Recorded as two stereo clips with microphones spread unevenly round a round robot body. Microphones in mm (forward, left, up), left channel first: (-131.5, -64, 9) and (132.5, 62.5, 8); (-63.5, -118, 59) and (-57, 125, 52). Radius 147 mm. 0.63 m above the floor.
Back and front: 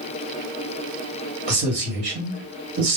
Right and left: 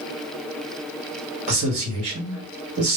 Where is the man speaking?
75° left, 1.3 m.